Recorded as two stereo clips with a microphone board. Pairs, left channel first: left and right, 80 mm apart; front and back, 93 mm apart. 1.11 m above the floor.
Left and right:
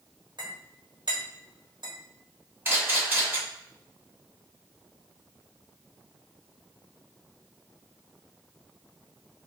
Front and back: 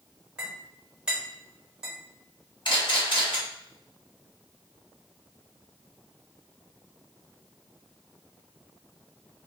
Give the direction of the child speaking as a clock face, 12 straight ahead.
No child speaking in this recording.